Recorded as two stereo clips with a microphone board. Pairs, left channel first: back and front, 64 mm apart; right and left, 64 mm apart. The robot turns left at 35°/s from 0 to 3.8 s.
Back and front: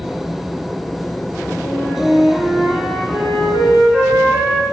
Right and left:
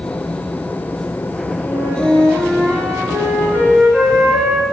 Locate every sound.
1.6 s a flute: 85° left, 3 m; by 4.6 s 5° left, 3 m